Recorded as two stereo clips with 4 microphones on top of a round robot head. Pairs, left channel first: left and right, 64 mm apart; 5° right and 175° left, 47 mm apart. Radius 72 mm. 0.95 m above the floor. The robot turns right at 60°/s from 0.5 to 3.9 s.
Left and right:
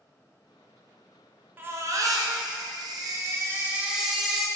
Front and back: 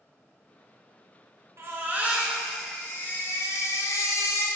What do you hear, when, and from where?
1.6 s a baby crying: 150° right, 0.9 m; by 4.5 s 10° right, 0.9 m